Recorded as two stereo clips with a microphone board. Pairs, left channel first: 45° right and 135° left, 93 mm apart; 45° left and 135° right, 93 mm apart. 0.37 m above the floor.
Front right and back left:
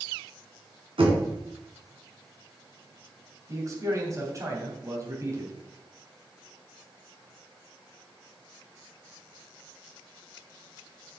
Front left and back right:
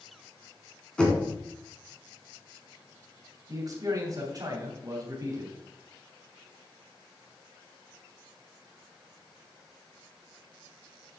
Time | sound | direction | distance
1.0 | knocking | 125° left | 3 m
3.5 | a man speaking | 175° right | 3 m